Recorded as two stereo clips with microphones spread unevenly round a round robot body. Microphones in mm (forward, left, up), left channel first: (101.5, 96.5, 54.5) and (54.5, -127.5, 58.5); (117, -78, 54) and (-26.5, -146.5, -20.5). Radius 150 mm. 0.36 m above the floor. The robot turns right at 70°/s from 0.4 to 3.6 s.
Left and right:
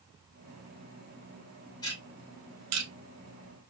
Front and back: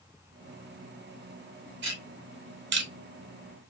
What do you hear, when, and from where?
1.8 s ticking: 155° left, 0.8 m; by 2.9 s 130° right, 0.8 m